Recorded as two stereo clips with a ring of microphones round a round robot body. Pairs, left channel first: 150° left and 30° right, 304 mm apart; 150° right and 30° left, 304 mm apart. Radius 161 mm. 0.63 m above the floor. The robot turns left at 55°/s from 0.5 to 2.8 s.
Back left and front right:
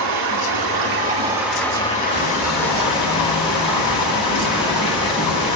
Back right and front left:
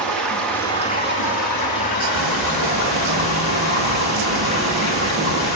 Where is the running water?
65° right, 3.5 m; by 5.6 s 170° left, 3.5 m.